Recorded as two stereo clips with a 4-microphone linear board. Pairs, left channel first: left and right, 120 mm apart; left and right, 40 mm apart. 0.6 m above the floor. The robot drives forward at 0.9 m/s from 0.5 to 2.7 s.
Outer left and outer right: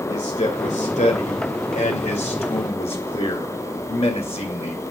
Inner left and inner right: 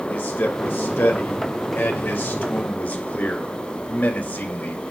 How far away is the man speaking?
About 2.5 m.